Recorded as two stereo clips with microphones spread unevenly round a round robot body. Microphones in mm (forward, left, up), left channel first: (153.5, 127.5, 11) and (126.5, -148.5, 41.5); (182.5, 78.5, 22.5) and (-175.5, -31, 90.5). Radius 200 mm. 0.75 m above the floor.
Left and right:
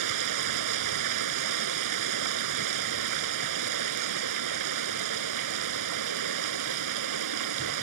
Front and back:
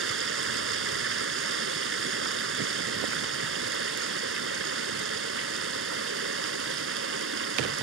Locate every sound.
0.0 s running water: 105° right